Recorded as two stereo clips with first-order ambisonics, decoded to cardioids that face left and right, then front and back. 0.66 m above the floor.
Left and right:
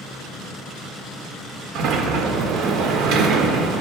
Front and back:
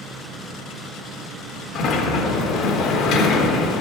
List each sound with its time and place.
1.8 s a sliding door: 50° right, 0.8 m